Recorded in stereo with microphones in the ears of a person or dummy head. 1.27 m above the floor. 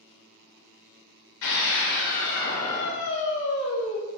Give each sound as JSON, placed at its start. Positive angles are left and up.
{"t": 1.4, "sound": "a scream", "side_deg": 70, "distance_m": 5.5}